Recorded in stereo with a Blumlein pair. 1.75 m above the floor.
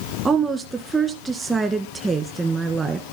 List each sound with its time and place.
0.2 s a woman speaking: 15° right, 2 m